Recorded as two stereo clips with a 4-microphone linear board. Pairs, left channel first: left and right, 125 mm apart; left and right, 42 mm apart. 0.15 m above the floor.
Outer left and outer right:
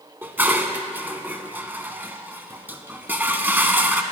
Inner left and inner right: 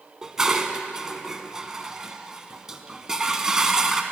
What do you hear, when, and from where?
0.2 s dishes clattering: 15° right (ahead or behind), 0.8 m